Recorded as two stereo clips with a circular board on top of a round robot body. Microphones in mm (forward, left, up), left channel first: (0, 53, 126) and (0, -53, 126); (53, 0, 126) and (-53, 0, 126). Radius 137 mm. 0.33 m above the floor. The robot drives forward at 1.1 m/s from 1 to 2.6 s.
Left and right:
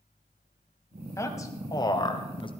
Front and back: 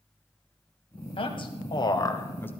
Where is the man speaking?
30° left, 2.5 m; by 2.5 s 70° left, 1.4 m.